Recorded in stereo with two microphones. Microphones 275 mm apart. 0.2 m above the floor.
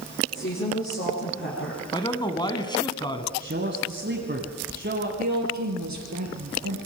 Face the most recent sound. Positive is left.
turn(degrees=-70)  # may be behind; listen again after turning